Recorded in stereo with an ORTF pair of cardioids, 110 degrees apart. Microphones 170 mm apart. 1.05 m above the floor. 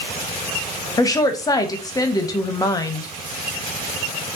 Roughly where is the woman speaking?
Ahead.